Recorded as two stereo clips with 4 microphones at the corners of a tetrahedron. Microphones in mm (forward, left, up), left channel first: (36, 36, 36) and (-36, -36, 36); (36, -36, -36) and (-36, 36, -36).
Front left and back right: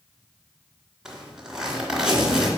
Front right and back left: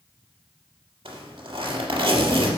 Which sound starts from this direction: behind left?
A zipper, at 1.1 s.